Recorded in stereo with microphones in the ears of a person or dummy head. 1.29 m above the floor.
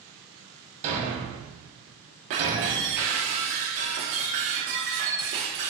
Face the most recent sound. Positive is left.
turn(degrees=-45)  # may be behind; listen again after turning